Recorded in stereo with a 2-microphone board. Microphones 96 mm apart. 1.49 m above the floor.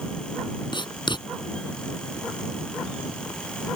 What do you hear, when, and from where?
0.7 s writing: 55° left (ahead or behind)